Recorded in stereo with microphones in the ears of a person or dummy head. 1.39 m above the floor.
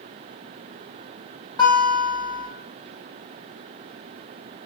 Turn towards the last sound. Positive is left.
turn(degrees=15)  # may be behind; listen again after turning